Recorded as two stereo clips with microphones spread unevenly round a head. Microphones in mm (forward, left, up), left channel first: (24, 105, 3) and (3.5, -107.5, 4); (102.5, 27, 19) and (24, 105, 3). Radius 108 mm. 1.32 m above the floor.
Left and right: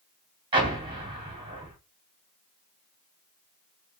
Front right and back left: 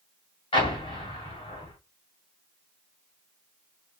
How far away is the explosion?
About 1.6 m.